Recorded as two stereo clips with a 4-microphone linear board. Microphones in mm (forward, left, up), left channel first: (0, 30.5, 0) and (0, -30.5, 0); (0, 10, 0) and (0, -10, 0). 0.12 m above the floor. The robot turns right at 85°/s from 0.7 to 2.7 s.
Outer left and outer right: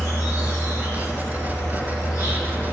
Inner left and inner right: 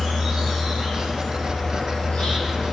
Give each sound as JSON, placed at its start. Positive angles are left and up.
{"t": 0.0, "sound": "an insect", "azimuth_deg": -40, "distance_m": 1.4}